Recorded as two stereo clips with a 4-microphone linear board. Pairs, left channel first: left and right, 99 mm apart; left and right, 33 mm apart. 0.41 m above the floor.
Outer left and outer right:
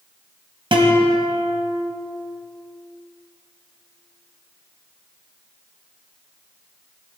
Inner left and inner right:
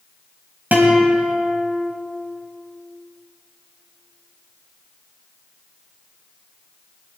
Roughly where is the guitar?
Right.